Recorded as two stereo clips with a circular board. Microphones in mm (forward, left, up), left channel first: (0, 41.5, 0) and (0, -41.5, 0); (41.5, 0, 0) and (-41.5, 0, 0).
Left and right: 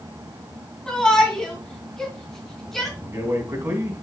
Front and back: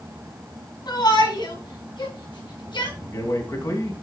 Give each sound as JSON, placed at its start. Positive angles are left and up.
{"t": 0.9, "sound": "a shout", "azimuth_deg": 10, "distance_m": 3.0}
{"t": 3.0, "sound": "a man speaking", "azimuth_deg": -35, "distance_m": 2.5}